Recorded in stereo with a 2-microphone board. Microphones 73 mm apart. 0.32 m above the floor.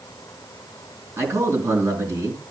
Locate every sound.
1.2 s a man speaking: 40° right (ahead or behind), 4 m